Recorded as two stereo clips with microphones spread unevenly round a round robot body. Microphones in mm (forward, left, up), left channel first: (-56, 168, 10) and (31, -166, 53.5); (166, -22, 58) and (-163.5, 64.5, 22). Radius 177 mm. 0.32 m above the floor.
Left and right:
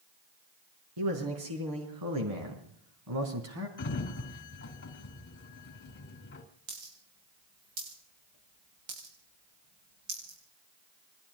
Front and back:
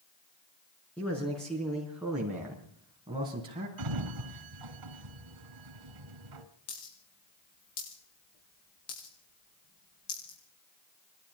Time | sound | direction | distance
1.0 | a man speaking | 100° right | 5.5 m
3.8 | a sliding door | 160° left | 2.5 m
6.7 | a dropped coin | 65° right | 9.5 m